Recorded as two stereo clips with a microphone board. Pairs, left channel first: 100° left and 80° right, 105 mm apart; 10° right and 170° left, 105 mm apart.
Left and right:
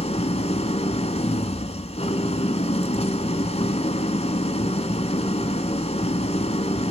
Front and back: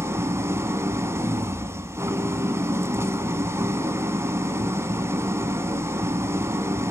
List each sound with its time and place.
0.0 s an engine running: 105° left, 1.3 m